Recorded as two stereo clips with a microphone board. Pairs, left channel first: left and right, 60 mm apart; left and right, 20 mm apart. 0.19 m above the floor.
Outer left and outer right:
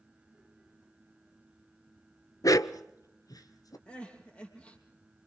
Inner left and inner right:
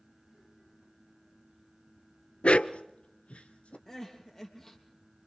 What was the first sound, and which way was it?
A dog barking, 65° left (ahead or behind).